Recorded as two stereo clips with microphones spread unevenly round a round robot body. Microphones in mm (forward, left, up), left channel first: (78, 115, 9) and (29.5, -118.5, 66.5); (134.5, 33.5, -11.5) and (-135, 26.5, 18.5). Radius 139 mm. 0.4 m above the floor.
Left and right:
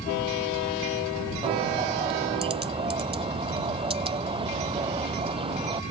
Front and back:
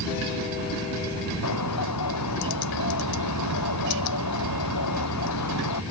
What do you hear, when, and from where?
1.4 s a bird: 35° right